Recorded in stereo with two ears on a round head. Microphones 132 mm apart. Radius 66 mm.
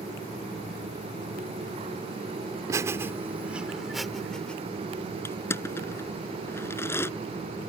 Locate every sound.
2.7 s laughter: 20° right (ahead or behind); by 4.6 s 5° left (ahead or behind)
5.2 s crushing: 15° left (ahead or behind)